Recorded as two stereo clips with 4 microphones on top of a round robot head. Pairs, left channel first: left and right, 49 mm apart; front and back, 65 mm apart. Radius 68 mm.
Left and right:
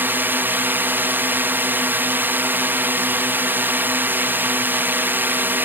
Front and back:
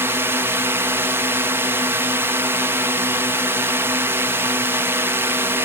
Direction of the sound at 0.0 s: 130° right.